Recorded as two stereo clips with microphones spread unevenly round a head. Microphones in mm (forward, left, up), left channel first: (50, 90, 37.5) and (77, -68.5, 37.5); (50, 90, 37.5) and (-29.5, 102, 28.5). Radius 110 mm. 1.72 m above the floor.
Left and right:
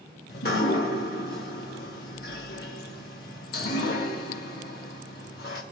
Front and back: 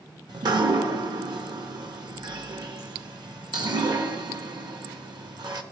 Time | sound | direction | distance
0.3 | dripping | 140° left | 1.1 m